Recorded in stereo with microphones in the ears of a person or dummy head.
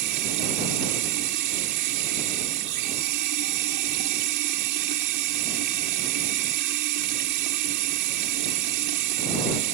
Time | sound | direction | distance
0.0 | running water | 60° right (ahead or behind) | ?